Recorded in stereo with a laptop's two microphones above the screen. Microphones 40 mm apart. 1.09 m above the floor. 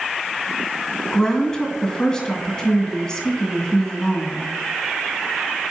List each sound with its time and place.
1.1 s a woman speaking: 20° left (ahead or behind), 2 m